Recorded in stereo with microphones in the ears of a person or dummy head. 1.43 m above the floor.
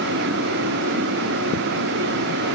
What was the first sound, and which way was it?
Only background noise.